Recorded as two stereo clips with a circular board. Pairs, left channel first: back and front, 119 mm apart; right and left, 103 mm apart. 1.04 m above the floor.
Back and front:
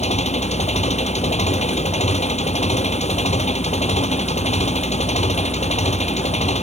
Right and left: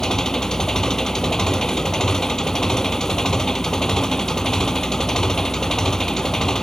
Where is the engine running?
175° right.